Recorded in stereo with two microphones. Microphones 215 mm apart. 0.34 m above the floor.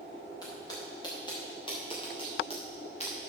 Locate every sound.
0.4 s footsteps: 20° left (ahead or behind), 4 m; by 3.3 s 30° left (ahead or behind), 3 m